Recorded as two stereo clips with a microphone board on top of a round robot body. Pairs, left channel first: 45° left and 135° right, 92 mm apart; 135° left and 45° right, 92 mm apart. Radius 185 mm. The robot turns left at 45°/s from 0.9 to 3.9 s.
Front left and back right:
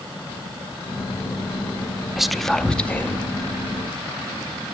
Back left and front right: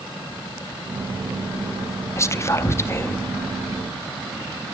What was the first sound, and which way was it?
Whispering, 140° left.